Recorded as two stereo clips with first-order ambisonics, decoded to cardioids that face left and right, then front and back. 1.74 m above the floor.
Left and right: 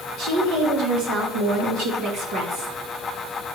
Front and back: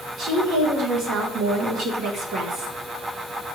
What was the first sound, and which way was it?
A woman speaking, 125° right.